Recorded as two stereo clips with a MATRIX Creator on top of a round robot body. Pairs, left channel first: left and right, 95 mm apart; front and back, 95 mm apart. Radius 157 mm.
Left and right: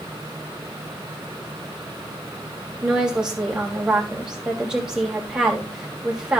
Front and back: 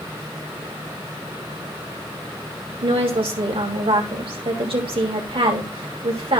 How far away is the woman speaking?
About 3.5 m.